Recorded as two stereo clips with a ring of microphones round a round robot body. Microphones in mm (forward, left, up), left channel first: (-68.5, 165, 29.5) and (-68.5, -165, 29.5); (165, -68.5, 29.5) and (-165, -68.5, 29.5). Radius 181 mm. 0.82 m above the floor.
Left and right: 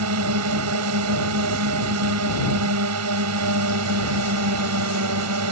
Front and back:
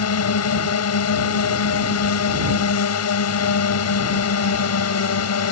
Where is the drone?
40° right.